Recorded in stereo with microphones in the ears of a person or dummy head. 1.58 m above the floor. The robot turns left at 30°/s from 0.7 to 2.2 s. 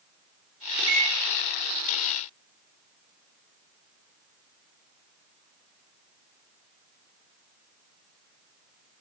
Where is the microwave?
80° right, 3.5 m; by 1.1 s 90° right, 3.5 m.